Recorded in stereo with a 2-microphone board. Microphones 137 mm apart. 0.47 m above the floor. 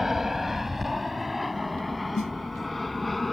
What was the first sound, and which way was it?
An aircraft, 5° right (ahead or behind).